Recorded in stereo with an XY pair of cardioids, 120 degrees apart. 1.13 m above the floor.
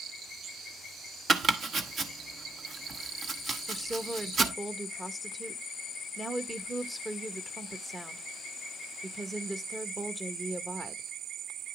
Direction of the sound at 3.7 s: 10° right.